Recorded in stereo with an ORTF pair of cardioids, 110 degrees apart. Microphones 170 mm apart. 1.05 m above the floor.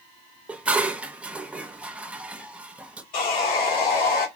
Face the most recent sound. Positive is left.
turn(degrees=55)